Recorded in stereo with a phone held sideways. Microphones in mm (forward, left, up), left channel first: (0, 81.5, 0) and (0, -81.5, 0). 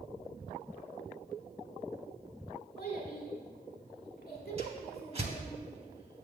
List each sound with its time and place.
2.8 s a child speaking: 70° left (ahead or behind), 1.7 m
4.6 s a whoosh: 40° right (ahead or behind), 0.9 m